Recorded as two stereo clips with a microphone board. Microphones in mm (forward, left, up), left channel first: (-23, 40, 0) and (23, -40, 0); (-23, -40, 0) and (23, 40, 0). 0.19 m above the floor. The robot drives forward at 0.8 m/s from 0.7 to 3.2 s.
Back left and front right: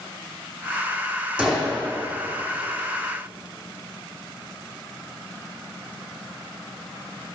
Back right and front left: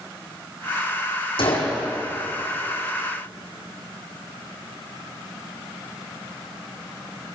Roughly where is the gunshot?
Behind right.